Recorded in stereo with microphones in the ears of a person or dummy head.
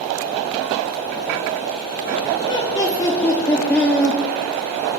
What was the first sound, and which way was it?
Laughter, 30° left (ahead or behind).